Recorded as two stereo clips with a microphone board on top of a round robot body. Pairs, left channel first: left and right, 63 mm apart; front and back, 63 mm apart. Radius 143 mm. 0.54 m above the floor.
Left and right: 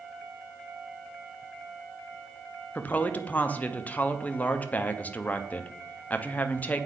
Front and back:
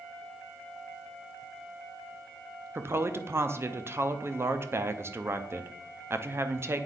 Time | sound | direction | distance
2.8 | a woman speaking | 145° left | 0.9 m